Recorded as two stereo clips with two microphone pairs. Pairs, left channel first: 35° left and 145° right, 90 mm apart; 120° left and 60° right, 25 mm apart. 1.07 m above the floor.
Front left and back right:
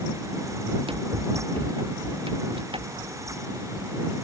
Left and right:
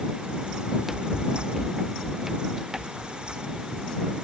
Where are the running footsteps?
140° right; by 3.9 s 135° right.